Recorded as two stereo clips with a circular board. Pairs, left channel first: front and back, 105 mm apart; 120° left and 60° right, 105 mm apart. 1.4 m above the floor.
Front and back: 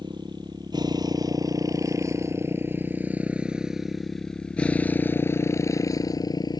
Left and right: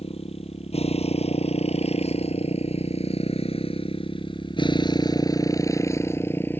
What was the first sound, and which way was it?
A motorcycle, 135° left.